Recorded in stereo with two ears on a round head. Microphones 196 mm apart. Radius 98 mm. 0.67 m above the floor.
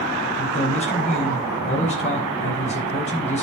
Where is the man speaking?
35° left (ahead or behind), 5 m.